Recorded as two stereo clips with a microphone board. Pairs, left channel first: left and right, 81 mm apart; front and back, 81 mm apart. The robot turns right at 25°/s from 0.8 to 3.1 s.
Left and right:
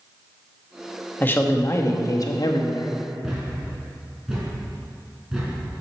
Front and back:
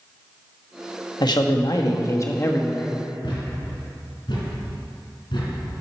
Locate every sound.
1.2 s a man speaking: 25° left, 1.1 m; by 2.9 s 70° left, 1.1 m
3.2 s a thud: 10° right, 3 m